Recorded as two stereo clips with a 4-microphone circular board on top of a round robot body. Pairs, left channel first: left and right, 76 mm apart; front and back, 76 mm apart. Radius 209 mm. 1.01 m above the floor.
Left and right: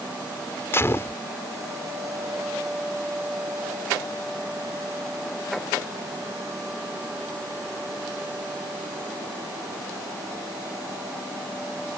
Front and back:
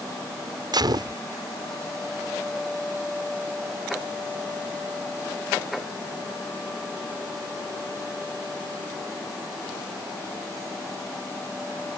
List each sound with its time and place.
0.7 s a gunshot: 150° left